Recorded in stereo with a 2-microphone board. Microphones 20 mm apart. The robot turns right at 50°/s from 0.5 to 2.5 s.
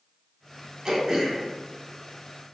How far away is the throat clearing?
About 1.2 m.